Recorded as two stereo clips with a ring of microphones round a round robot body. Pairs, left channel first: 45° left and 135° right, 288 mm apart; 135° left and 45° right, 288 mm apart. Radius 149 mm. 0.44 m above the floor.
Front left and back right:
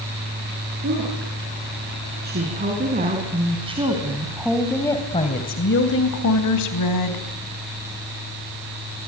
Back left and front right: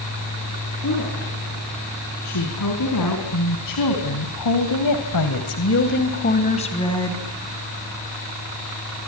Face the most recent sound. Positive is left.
turn(degrees=55)